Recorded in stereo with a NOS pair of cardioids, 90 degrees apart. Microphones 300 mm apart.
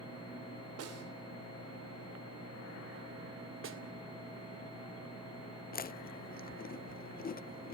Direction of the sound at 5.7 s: 30° left.